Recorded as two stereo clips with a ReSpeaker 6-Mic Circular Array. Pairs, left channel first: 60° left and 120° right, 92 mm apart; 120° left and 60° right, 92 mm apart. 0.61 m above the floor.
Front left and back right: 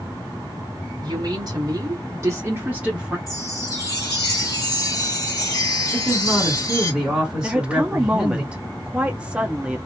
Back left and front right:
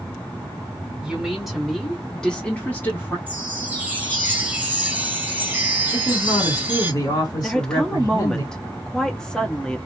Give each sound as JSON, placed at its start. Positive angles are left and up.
{"t": 1.0, "sound": "a woman speaking", "azimuth_deg": -140, "distance_m": 1.6}
{"t": 3.3, "sound": "a chime", "azimuth_deg": 10, "distance_m": 0.8}
{"t": 5.9, "sound": "a man speaking", "azimuth_deg": 160, "distance_m": 1.8}
{"t": 7.4, "sound": "a woman speaking", "azimuth_deg": -170, "distance_m": 0.6}